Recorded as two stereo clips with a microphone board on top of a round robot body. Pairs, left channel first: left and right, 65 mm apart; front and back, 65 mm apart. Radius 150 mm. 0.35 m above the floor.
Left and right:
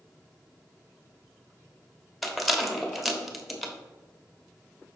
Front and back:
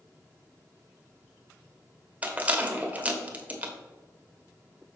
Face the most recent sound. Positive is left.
turn(degrees=180)